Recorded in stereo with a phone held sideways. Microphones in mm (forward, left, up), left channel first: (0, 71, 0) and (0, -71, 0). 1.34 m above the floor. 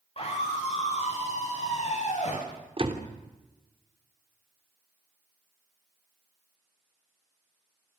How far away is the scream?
About 9 m.